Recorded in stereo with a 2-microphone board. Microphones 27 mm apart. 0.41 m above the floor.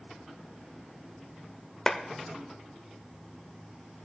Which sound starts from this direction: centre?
A clap, at 1.9 s.